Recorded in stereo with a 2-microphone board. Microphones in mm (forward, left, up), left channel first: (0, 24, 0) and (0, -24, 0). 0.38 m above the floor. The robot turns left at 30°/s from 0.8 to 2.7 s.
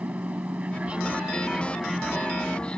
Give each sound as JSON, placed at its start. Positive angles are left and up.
{"t": 0.0, "sound": "an aircraft", "azimuth_deg": -145}